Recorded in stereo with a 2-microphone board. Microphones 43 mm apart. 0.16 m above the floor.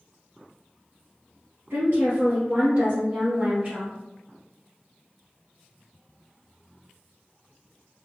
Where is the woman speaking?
60° right (ahead or behind), 2.0 m; by 3.9 s 35° right (ahead or behind), 2 m.